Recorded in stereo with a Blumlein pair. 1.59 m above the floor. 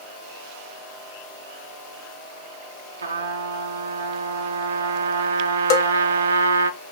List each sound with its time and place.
3.0 s a trumpet: 70° right, 0.5 m
5.7 s a bell: 40° left, 0.6 m